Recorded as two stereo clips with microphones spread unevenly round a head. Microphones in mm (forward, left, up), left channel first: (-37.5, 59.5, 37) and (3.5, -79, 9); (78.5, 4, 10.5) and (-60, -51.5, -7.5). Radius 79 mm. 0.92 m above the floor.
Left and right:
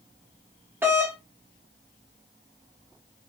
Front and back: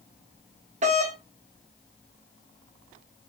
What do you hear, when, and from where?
0.8 s a doorbell: 140° right, 1.1 m